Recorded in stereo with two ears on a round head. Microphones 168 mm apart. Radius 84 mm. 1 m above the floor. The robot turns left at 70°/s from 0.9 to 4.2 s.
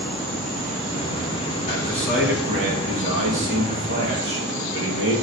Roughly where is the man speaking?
Ahead left.